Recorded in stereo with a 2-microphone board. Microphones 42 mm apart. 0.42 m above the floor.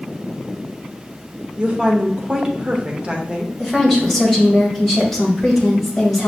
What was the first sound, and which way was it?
A woman speaking, 30° right (ahead or behind).